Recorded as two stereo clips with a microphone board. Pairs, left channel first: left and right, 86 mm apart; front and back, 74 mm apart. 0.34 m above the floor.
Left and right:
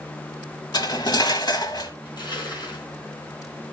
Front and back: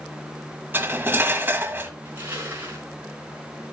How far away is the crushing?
About 4.5 m.